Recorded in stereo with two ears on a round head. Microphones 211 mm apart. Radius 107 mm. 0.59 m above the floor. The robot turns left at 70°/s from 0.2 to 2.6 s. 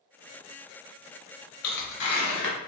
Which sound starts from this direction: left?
Tearing paper, at 1.6 s.